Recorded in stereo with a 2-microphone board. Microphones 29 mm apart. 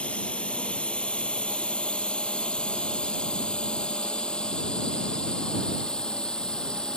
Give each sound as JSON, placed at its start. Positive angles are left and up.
{"t": 0.0, "sound": "a drone", "side_deg": 45}